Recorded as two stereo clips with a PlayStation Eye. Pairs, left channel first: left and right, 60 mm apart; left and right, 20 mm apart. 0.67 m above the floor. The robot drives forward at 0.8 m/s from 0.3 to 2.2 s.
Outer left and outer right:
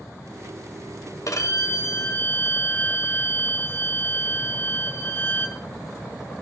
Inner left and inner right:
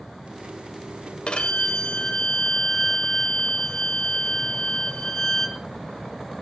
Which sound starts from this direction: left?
A violin, at 1.3 s.